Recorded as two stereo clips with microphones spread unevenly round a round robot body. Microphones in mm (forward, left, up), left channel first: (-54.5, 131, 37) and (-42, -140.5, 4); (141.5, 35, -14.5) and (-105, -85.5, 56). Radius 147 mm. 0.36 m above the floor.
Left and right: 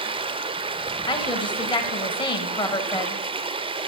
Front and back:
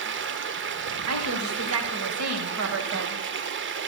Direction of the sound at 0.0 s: 120° right.